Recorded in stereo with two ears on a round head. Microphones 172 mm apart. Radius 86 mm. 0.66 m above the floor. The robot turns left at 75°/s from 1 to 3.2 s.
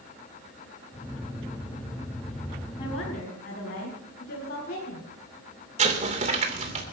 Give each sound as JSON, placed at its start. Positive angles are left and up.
{"t": 2.8, "sound": "a woman speaking", "azimuth_deg": 155, "distance_m": 5.5}
{"t": 5.8, "sound": "an explosion", "side_deg": -35, "distance_m": 2.5}